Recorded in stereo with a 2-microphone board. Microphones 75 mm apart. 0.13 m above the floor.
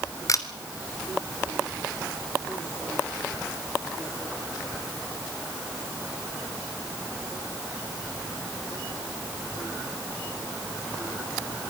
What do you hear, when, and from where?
0.3 s a camera shutter: 45° left (ahead or behind), 1.8 m